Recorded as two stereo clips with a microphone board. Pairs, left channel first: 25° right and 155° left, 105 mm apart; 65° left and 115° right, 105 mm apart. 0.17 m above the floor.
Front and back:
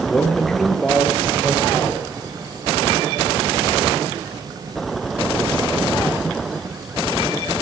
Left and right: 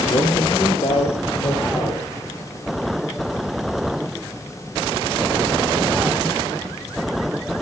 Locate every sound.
0.1 s a man speaking: 55° left, 2.5 m; by 2.0 s 75° left, 4.5 m